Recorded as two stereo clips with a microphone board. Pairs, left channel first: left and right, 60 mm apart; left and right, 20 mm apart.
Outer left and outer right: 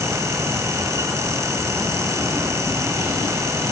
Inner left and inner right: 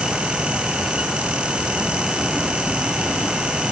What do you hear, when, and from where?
Only background noise.